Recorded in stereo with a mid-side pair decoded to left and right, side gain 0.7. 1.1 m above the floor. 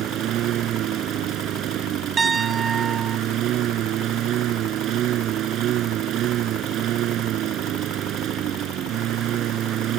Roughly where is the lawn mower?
Ahead right.